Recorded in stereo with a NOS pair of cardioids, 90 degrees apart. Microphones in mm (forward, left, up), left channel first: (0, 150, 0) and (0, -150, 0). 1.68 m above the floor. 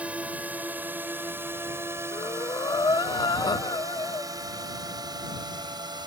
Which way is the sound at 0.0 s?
5° right.